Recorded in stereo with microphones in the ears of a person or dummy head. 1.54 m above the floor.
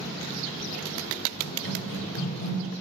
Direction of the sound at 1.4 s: 45° left (ahead or behind).